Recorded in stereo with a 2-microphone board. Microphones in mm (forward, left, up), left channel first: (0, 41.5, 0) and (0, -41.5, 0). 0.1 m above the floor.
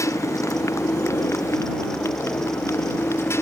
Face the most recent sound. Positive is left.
turn(degrees=30)  # may be behind; listen again after turning